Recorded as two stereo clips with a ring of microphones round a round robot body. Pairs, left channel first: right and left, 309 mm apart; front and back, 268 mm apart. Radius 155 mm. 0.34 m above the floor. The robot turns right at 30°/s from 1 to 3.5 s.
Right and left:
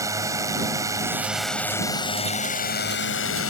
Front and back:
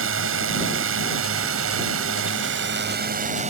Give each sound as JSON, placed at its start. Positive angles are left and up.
{"t": 0.0, "sound": "a drone", "azimuth_deg": 165}